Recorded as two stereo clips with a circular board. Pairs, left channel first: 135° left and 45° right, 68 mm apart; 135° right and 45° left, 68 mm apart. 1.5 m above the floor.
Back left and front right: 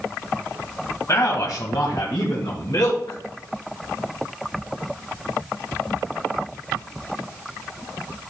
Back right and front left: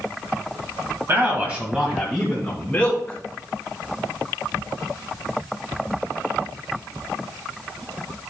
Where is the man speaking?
95° left, 1.9 m; by 3.2 s 155° left, 3.5 m.